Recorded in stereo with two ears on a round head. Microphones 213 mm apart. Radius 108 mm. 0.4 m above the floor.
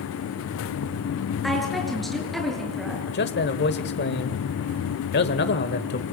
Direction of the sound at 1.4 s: Centre (ahead or behind).